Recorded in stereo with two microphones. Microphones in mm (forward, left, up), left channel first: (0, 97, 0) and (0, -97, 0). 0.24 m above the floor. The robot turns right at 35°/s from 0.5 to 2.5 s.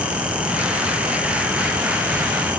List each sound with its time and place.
Only background noise.